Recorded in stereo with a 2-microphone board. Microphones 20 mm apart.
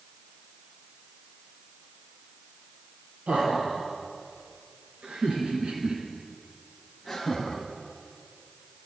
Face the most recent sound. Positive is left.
turn(degrees=20)  # may be behind; listen again after turning